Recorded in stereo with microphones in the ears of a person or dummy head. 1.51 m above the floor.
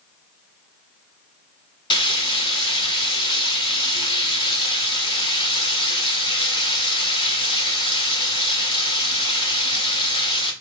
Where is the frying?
25° left (ahead or behind), 1.6 m.